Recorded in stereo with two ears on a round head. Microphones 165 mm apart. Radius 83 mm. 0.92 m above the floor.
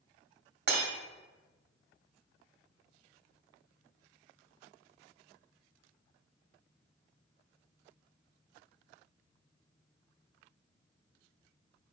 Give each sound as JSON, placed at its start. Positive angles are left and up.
{"t": 0.7, "sound": "breaking glass", "side_deg": -55, "distance_m": 1.5}